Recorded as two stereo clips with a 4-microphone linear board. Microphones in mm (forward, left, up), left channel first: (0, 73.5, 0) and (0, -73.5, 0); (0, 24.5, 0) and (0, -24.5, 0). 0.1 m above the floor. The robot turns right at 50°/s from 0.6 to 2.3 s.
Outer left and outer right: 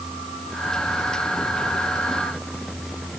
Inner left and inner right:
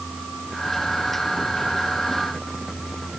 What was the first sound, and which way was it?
Only background noise.